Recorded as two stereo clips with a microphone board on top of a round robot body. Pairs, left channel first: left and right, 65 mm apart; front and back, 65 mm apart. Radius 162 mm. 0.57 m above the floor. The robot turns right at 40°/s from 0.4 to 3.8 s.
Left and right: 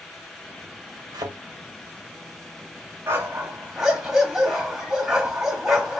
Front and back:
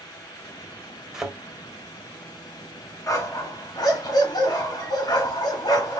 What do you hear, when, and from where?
1.1 s a thud: 100° right, 1.7 m; by 1.4 s 90° right, 1.7 m
3.1 s a dog barking: 40° right, 1.9 m; by 6.0 s 10° right, 1.9 m